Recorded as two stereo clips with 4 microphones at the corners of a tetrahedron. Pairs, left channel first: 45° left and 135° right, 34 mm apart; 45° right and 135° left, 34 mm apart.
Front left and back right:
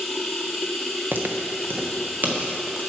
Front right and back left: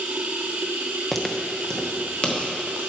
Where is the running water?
140° left, 0.9 m.